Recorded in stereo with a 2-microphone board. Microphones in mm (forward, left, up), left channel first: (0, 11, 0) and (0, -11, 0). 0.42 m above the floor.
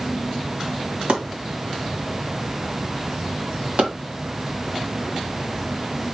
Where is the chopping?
70° right (ahead or behind), 2 m.